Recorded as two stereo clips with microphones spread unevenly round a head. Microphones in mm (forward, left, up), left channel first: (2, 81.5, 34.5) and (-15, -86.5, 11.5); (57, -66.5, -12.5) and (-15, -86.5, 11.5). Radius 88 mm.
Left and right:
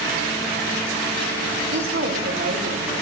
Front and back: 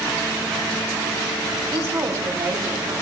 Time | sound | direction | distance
1.7 | a woman speaking | 125° right | 5.5 m